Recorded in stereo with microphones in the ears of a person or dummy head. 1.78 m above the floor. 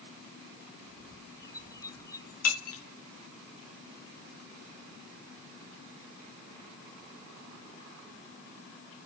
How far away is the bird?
About 0.6 m.